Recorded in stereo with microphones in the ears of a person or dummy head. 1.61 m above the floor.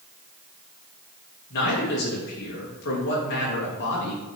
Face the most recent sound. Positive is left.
turn(degrees=55)  # may be behind; listen again after turning